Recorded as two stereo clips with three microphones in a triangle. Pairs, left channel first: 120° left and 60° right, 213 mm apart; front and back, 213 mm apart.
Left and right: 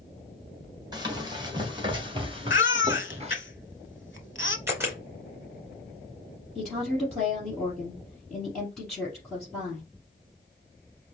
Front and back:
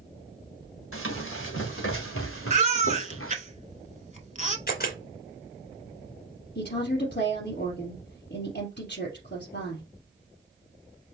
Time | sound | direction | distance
0.9 | running footsteps | 10° left | 2.5 m
2.5 | a baby crying | 130° left | 0.7 m
4.7 | a camera shutter | 15° left | 2.5 m
6.5 | a woman speaking | 35° left | 3.5 m